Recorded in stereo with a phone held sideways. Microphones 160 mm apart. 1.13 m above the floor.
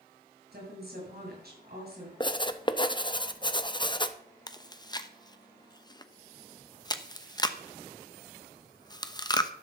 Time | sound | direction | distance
0.5 | a woman speaking | 75° right (ahead or behind) | 7 m
2.2 | writing | 30° left (ahead or behind) | 0.8 m
4.5 | chewing | 25° left (ahead or behind) | 0.8 m